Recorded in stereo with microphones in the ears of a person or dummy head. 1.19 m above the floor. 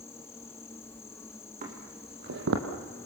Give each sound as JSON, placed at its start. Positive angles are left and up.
{"t": 0.0, "sound": "an insect", "side_deg": 15, "distance_m": 0.9}
{"t": 1.6, "sound": "footsteps", "side_deg": -40, "distance_m": 3.0}